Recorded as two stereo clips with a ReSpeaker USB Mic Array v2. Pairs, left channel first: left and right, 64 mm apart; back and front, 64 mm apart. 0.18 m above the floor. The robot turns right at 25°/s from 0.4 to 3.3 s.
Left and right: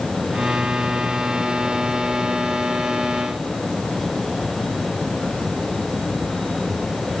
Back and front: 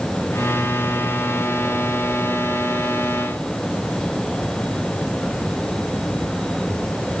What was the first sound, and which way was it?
Only background noise.